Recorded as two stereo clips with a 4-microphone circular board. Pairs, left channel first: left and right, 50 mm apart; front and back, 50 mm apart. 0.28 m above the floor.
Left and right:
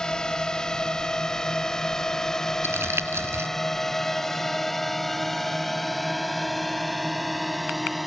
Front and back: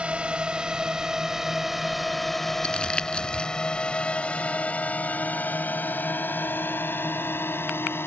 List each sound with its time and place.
0.0 s a drone: 150° left; by 8.1 s straight ahead
2.6 s crumpling: 70° right